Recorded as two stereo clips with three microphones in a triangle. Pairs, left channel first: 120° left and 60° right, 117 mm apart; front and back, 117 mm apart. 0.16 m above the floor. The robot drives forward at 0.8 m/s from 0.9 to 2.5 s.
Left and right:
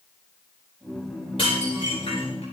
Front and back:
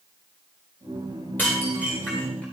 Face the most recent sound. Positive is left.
turn(degrees=80)